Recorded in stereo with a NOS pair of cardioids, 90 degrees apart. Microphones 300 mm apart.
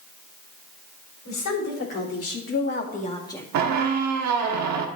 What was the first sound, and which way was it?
A woman speaking, 65° left.